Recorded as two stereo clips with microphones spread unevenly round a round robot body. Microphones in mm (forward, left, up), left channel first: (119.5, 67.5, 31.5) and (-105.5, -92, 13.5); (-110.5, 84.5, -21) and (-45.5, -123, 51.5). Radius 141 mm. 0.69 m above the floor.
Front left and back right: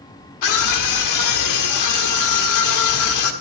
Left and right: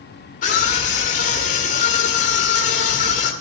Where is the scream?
55° left, 1.6 m.